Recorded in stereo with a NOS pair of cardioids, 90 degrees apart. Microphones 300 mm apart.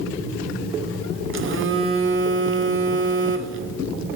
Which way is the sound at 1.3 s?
45° right.